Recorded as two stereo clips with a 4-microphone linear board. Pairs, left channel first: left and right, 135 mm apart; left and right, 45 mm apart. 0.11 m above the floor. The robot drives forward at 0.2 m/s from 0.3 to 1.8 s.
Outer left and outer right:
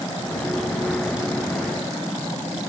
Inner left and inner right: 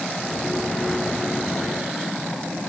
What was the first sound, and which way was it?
Only background noise.